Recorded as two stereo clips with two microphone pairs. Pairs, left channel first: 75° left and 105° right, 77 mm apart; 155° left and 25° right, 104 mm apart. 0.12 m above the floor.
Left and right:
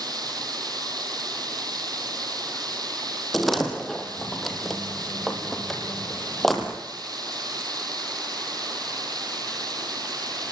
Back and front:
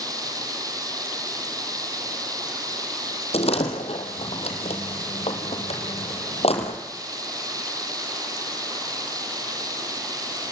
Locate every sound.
0.0 s running water: 80° right, 3 m
3.3 s a door slam: 165° left, 3.5 m